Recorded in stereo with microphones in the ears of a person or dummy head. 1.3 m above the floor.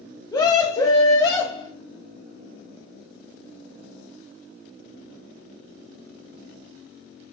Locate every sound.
0.3 s a scream: 25° left (ahead or behind), 1.5 m